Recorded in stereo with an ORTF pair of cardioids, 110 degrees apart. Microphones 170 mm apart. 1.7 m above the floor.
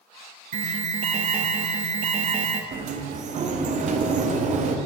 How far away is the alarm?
About 0.5 m.